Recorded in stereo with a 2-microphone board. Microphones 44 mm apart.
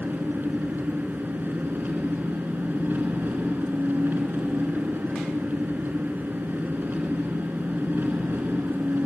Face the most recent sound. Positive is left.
turn(degrees=-50)  # may be behind; listen again after turning